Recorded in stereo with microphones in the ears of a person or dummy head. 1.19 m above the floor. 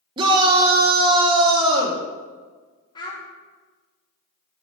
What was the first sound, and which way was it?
A shout, 25° right (ahead or behind).